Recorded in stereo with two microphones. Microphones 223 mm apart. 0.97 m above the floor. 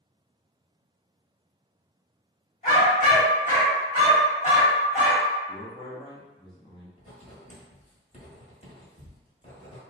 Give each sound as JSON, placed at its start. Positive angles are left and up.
{"t": 2.6, "sound": "a dog barking", "side_deg": 35, "distance_m": 1.2}
{"t": 5.5, "sound": "a man speaking", "side_deg": 20, "distance_m": 0.9}
{"t": 7.0, "sound": "writing", "side_deg": 35, "distance_m": 1.1}